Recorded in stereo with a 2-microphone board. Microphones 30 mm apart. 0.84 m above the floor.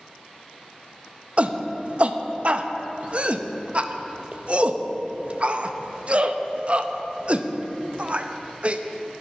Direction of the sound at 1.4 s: 40° right (ahead or behind).